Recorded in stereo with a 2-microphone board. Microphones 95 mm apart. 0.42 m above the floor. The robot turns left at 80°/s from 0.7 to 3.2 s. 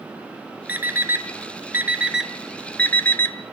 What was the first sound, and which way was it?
An alarm clock, 15° right (ahead or behind).